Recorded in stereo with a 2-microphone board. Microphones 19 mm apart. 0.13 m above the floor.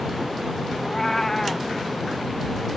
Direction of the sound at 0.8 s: 20° left (ahead or behind).